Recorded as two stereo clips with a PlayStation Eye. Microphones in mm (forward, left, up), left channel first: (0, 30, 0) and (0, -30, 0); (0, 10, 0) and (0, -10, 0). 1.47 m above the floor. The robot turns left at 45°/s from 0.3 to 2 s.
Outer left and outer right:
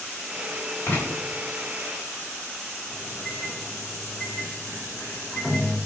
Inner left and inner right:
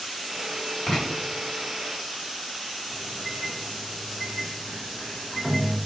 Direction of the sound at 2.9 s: 5° left (ahead or behind).